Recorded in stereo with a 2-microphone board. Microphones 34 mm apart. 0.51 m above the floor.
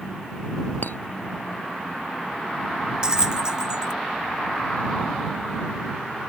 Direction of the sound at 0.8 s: 65° left (ahead or behind).